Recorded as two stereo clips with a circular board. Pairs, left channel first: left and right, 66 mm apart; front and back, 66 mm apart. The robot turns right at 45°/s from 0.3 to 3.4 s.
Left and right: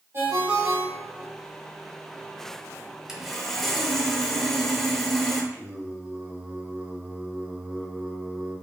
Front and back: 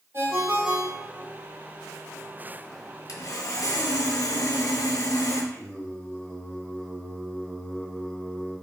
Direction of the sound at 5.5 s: 45° right.